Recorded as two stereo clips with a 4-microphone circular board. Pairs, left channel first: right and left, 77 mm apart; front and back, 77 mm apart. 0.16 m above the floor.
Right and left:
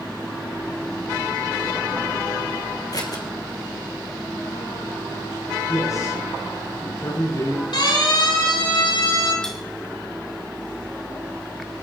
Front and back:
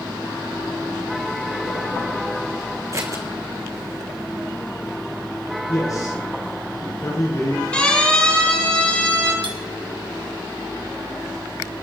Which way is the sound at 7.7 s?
75° right.